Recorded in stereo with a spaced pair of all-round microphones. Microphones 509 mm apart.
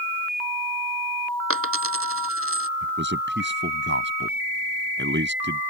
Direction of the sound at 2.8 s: 20° right (ahead or behind).